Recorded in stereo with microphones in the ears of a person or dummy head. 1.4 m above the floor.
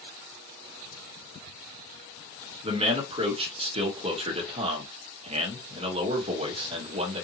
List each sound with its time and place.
2.6 s a man speaking: 35° right (ahead or behind), 1.2 m